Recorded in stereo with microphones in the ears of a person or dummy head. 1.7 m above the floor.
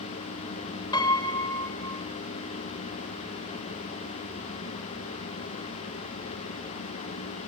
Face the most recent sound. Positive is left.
turn(degrees=20)  # may be behind; listen again after turning